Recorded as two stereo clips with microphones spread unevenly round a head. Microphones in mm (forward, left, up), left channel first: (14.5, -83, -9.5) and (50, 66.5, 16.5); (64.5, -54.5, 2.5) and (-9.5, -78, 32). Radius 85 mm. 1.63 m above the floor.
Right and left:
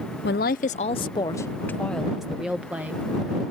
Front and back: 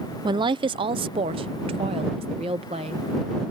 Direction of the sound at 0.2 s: 135° right.